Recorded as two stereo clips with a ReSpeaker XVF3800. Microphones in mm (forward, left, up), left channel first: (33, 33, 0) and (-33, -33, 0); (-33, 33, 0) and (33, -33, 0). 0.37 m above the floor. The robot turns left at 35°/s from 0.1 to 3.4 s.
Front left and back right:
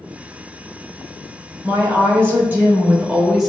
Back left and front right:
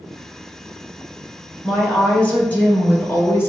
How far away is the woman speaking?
About 1.2 m.